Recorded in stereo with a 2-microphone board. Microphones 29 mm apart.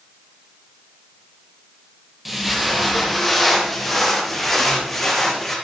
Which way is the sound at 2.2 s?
5° right (ahead or behind).